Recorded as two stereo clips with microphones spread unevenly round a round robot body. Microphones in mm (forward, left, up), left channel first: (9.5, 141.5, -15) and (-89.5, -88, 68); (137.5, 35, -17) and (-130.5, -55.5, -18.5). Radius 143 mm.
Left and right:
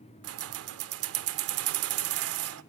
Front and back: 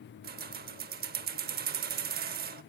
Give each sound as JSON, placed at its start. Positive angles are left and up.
{"t": 0.2, "sound": "keys jangling", "azimuth_deg": -130, "distance_m": 0.7}